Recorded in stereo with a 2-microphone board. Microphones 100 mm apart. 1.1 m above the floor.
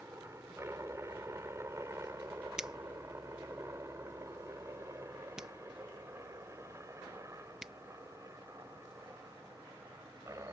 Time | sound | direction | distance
0.0 | a helicopter | 25° right (ahead or behind) | ?
2.6 | a finger snap | 5° right (ahead or behind) | ?